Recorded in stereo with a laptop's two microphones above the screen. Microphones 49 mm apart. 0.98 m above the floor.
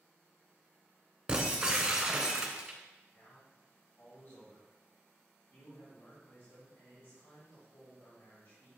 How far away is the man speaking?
About 2.5 m.